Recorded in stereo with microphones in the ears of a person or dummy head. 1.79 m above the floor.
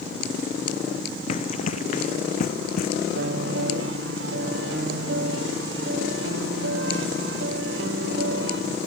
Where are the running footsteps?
45° left (ahead or behind); by 2.9 s 55° left (ahead or behind).